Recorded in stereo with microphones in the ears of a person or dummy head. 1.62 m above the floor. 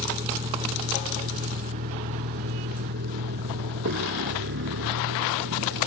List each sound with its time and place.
0.0 s a vehicle: 25° right (ahead or behind); by 5.9 s 70° right (ahead or behind)